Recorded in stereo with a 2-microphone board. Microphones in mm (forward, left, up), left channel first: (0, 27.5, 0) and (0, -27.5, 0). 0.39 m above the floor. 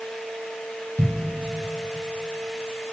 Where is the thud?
40° right (ahead or behind), 4.5 m.